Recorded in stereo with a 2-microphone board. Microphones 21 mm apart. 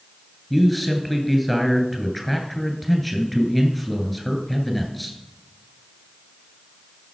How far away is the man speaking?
About 1.8 m.